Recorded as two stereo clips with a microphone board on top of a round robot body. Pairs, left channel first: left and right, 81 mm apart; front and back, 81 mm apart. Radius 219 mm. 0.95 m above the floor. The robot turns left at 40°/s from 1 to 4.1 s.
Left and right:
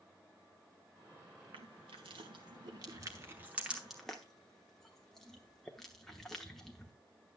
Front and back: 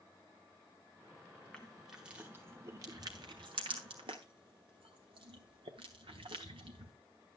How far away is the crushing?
About 0.9 m.